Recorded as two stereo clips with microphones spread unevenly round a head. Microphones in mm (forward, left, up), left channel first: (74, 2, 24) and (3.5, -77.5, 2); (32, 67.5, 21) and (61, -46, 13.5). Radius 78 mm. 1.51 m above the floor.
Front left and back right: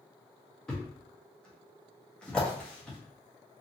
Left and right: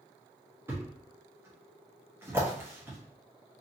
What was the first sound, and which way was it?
A thud, 10° right.